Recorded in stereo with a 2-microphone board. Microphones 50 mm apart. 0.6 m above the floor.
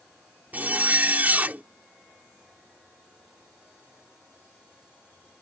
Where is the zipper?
35° right (ahead or behind).